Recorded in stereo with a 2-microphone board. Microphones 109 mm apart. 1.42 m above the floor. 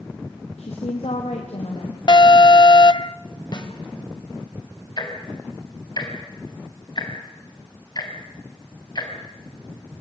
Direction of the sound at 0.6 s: 85° left.